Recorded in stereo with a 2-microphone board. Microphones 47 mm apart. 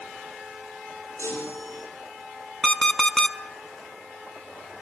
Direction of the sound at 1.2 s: 75° left (ahead or behind).